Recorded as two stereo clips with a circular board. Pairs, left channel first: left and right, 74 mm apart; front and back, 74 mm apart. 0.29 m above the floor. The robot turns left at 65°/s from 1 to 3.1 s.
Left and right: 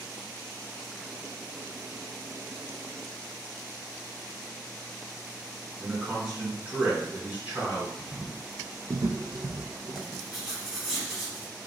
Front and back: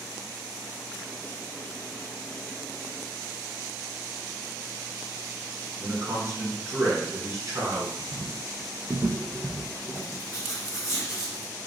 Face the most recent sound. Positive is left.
turn(degrees=-10)